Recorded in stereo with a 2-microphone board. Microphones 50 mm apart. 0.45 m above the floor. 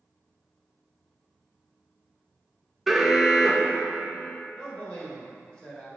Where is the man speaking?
20° left (ahead or behind), 1.8 m.